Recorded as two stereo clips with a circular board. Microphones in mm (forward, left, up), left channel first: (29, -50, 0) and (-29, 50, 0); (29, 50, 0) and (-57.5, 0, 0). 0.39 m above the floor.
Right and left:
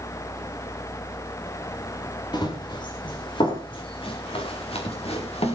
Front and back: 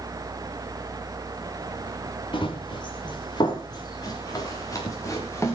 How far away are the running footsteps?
About 5.5 m.